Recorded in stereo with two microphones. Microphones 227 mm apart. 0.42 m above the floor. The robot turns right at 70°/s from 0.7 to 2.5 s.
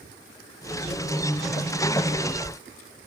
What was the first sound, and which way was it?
Only background noise.